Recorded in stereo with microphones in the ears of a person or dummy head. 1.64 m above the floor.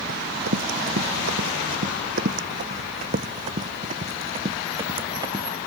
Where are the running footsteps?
65° right (ahead or behind); by 5.5 s 20° right (ahead or behind).